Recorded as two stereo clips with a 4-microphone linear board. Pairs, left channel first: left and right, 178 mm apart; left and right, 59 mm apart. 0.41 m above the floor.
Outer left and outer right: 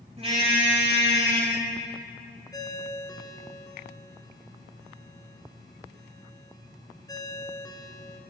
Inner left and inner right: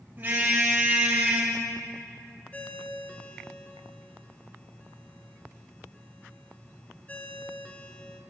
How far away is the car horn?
About 8 m.